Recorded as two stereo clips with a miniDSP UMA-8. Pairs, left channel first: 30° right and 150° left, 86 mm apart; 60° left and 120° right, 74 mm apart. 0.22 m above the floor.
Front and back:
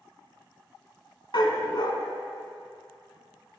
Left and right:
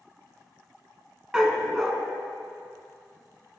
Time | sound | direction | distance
1.3 | a dog barking | 40° right | 1.0 m